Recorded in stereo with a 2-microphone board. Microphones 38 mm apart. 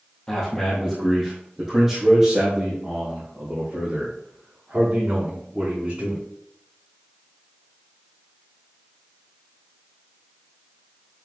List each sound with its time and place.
0.3 s a man speaking: 20° left (ahead or behind), 2.5 m; by 6.2 s 35° right (ahead or behind), 6.5 m